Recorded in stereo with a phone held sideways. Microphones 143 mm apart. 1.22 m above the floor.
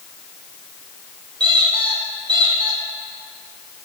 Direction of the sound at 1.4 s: 30° right (ahead or behind).